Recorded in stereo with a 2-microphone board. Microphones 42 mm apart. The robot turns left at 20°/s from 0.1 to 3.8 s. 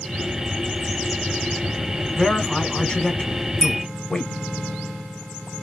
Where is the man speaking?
15° left (ahead or behind), 1.3 m; by 4.3 s 20° left (ahead or behind), 1.3 m.